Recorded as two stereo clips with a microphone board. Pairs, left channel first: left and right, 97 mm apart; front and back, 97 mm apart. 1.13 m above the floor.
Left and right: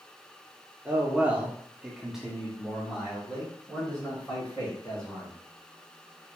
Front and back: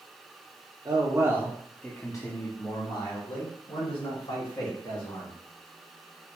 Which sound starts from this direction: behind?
A man speaking, at 0.8 s.